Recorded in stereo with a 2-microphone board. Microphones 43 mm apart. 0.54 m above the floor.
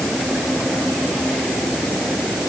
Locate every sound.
Only background noise.